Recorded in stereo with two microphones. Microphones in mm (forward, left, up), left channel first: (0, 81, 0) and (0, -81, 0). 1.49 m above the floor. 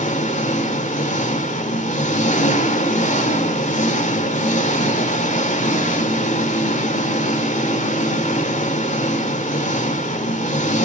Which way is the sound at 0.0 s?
50° left (ahead or behind).